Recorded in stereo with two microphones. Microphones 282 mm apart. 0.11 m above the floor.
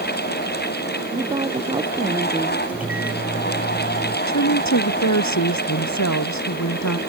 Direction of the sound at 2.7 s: 5° right (ahead or behind).